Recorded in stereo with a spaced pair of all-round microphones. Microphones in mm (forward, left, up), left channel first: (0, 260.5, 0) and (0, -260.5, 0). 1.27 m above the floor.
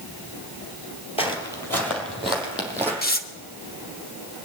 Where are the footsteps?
10° left (ahead or behind), 1.9 m; by 2.9 s 5° right (ahead or behind), 3.5 m.